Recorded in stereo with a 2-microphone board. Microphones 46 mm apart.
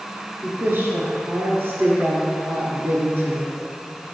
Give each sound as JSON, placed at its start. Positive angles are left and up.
{"t": 0.4, "sound": "a woman speaking", "side_deg": -50, "distance_m": 1.8}